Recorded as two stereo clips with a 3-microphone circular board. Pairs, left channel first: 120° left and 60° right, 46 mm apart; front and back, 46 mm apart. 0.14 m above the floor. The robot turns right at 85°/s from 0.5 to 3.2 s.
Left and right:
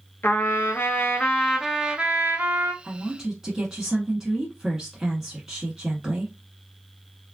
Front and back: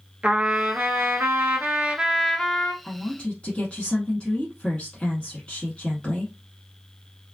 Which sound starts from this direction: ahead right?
A woman speaking, at 2.8 s.